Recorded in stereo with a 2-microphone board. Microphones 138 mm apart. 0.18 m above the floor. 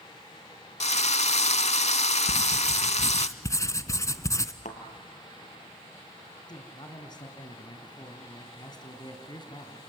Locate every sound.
0.8 s a drill: 55° left (ahead or behind), 0.6 m
2.3 s writing: 25° left (ahead or behind), 0.8 m
4.7 s a thud: 65° left (ahead or behind), 1.9 m
6.5 s a man speaking: 30° left (ahead or behind), 2.0 m